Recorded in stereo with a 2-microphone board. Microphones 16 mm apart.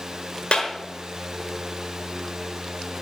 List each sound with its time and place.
0.5 s a clap: 70° left (ahead or behind), 4.5 m